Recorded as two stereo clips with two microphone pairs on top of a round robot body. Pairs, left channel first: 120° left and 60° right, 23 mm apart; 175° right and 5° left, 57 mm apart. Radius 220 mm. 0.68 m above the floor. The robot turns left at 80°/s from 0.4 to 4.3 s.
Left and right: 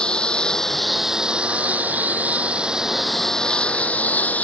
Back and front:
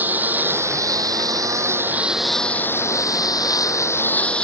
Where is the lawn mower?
65° left; by 4.4 s 115° left.